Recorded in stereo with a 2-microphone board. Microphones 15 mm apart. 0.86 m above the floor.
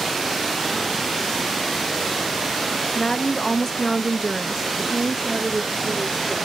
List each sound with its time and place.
3.0 s a woman speaking: 50° left (ahead or behind), 0.8 m; by 6.5 s 40° right (ahead or behind), 1.7 m